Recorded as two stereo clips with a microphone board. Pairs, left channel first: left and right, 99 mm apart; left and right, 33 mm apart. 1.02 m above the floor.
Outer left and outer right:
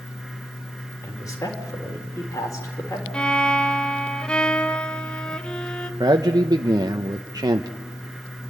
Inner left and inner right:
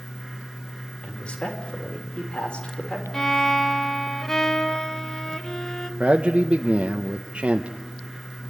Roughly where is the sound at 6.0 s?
Right.